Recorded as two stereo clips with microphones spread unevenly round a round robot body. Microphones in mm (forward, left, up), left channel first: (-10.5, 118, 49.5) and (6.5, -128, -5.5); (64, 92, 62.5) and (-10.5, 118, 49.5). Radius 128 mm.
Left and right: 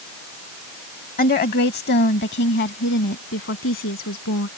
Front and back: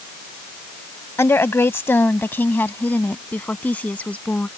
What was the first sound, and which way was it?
A woman speaking, 40° left.